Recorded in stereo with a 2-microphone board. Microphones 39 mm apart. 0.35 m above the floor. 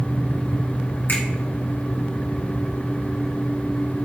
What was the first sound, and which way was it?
A finger snap, 65° left (ahead or behind).